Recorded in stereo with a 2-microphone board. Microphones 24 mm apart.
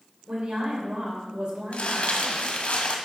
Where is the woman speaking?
55° right (ahead or behind), 3 m.